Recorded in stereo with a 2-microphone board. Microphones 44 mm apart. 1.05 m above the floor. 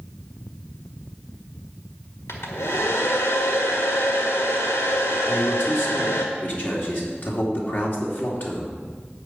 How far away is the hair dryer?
About 1.6 m.